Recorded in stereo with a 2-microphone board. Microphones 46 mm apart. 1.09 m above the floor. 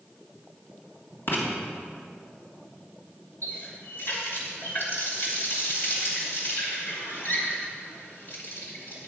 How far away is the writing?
About 2.5 m.